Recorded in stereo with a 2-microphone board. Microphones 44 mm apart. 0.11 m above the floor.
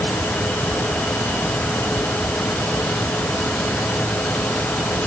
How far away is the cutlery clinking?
No cutlery clinking in this recording.